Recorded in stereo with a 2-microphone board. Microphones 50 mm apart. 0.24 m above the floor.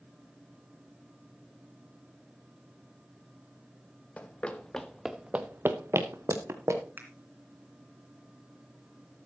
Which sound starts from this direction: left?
Running footsteps, at 4.2 s.